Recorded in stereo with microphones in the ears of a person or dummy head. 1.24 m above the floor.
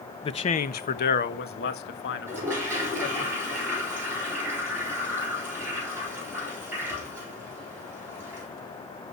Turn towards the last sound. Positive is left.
turn(degrees=-15)  # may be behind; listen again after turning